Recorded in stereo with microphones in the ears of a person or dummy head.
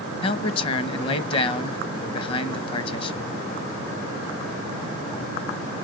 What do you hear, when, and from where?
0.2 s a man speaking: 25° left (ahead or behind), 1.0 m